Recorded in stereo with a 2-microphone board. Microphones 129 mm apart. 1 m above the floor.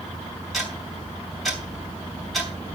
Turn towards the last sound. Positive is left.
turn(degrees=0)  # may be behind; listen again after turning